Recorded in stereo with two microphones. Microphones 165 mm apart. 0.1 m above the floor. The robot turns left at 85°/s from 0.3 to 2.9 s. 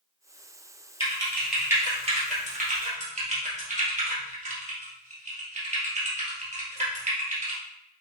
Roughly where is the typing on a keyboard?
Left.